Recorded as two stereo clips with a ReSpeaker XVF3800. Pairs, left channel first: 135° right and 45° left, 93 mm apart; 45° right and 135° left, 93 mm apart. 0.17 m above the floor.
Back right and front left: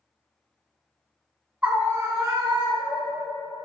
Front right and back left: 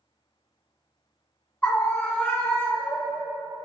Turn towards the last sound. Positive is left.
turn(degrees=25)